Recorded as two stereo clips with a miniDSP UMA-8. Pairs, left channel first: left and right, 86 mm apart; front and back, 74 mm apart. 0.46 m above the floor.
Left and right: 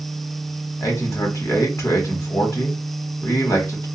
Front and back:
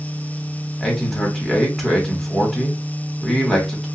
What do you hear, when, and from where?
0.8 s a man speaking: 85° left, 1.2 m